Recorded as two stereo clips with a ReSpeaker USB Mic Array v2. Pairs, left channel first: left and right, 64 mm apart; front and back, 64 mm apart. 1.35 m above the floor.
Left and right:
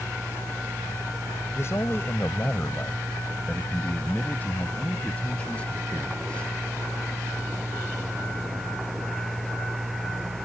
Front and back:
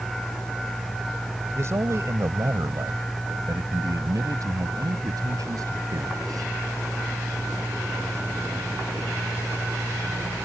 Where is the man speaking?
135° left; by 6.5 s 165° left.